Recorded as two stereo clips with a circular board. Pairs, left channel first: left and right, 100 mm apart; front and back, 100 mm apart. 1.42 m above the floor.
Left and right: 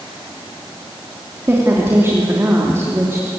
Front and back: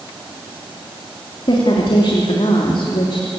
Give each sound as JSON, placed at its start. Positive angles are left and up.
{"t": 1.5, "sound": "a woman speaking", "azimuth_deg": -25, "distance_m": 3.0}